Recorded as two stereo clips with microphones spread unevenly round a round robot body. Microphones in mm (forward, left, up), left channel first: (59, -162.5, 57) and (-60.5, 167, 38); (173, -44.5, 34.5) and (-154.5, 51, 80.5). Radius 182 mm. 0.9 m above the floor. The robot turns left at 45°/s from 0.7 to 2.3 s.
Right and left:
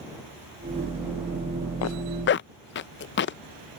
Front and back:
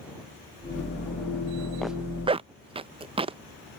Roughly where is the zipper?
Right.